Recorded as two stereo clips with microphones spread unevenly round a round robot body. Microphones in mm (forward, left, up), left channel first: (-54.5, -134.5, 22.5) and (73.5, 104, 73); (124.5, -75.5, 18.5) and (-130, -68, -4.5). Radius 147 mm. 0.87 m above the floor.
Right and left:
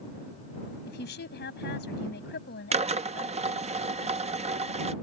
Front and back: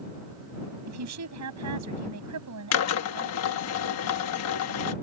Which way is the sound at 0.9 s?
175° right.